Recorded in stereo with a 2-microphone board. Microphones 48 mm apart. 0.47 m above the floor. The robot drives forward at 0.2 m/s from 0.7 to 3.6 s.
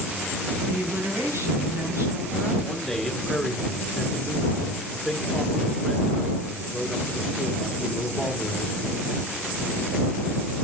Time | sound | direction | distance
0.6 | a woman speaking | 75° right (ahead or behind) | 3.5 m
2.6 | a man speaking | 5° left (ahead or behind) | 1.4 m